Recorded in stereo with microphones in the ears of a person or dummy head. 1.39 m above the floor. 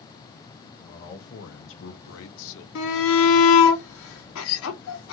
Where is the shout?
70° left (ahead or behind), 0.8 m.